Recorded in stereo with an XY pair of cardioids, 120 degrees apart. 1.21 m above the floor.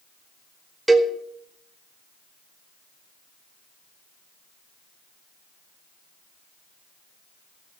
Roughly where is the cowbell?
Ahead.